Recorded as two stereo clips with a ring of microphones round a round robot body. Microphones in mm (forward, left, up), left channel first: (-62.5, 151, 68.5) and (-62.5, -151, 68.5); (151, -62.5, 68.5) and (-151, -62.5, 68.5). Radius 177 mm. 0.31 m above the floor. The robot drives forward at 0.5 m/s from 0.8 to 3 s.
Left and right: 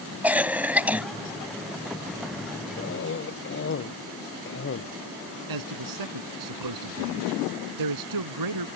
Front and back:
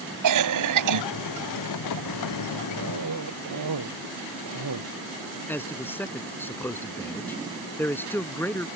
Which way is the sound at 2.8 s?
140° left.